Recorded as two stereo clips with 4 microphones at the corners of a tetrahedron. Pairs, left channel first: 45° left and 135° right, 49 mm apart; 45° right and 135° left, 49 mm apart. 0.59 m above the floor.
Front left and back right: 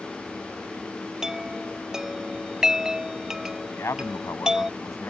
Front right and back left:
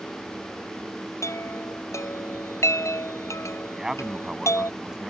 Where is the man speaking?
55° left.